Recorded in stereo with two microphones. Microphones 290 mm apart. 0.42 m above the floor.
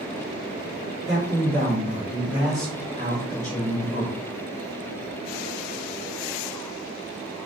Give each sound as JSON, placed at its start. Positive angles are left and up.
{"t": 1.1, "sound": "a man speaking", "side_deg": -40, "distance_m": 1.2}